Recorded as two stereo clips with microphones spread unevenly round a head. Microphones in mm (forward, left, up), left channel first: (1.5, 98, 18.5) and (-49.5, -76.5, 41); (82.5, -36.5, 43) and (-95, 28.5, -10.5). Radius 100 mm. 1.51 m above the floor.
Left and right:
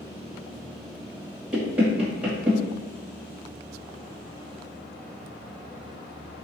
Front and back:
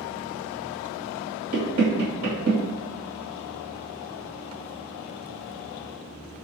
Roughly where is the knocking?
Behind.